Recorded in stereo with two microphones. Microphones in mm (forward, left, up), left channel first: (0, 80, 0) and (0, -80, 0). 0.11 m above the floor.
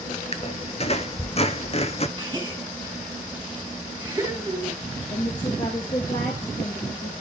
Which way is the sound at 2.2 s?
25° right (ahead or behind).